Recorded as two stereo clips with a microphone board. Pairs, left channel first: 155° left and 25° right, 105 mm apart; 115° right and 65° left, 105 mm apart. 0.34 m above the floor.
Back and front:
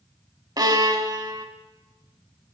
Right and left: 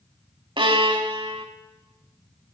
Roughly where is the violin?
Ahead left.